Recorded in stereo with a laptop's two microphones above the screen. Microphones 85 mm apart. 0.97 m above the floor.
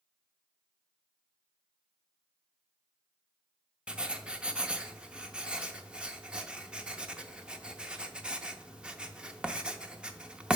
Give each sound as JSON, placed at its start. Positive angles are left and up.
{"t": 3.9, "sound": "writing", "side_deg": -10, "distance_m": 0.5}